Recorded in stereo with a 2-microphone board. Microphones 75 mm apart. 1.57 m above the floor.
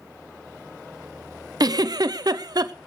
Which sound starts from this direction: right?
A giggle, at 1.6 s.